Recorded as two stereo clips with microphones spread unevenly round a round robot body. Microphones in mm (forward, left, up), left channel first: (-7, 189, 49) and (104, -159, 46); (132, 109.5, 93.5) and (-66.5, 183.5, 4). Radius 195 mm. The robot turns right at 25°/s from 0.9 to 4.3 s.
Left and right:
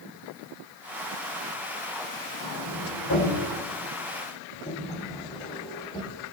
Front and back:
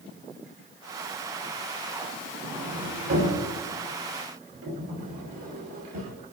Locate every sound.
2.4 s a sliding door: 140° left, 6.5 m; by 6.1 s 175° right, 6.5 m